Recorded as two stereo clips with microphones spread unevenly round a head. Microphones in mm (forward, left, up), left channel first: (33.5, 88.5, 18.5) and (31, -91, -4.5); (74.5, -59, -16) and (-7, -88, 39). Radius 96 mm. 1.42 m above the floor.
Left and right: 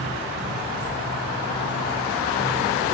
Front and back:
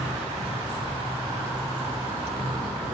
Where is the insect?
155° right, 6 m.